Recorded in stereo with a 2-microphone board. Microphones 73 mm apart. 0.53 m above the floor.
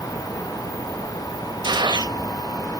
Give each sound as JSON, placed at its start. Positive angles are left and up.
{"t": 1.6, "sound": "a gunshot", "side_deg": -80, "distance_m": 0.8}